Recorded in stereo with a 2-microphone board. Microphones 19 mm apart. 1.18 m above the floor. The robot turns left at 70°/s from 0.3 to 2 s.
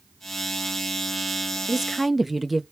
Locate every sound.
1.7 s a woman speaking: 20° right (ahead or behind), 0.5 m; by 2.6 s 5° right (ahead or behind), 0.5 m